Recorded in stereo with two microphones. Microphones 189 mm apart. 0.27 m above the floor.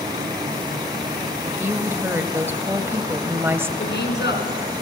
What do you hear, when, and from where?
1.4 s a woman speaking: 10° right (ahead or behind), 1.0 m
3.8 s a woman speaking: 65° left (ahead or behind), 3.5 m